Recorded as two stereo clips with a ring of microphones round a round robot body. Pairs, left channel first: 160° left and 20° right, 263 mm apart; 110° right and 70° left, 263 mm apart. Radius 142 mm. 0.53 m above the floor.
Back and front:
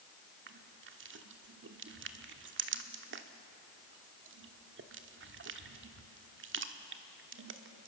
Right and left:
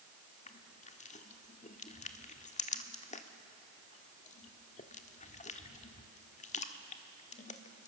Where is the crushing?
55° right, 1.2 m.